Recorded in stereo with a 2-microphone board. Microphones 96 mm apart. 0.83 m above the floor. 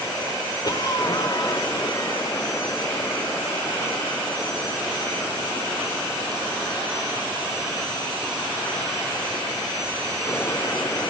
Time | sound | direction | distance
0.6 | a cough | 45° left (ahead or behind) | 2.5 m